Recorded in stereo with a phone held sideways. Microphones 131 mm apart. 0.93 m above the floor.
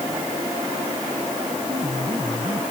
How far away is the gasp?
I don't hear a gasp.